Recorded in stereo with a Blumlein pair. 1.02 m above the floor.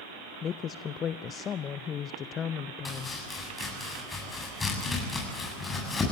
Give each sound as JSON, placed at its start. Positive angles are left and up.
{"t": 0.4, "sound": "a woman speaking", "azimuth_deg": 25, "distance_m": 0.5}
{"t": 2.9, "sound": "chopping", "azimuth_deg": 10, "distance_m": 7.5}